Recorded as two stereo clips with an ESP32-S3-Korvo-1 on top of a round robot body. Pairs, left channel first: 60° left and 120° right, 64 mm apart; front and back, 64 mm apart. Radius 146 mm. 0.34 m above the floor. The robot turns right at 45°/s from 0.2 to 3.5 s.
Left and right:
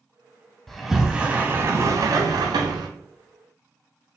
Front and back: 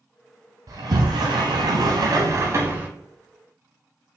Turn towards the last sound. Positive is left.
turn(degrees=-90)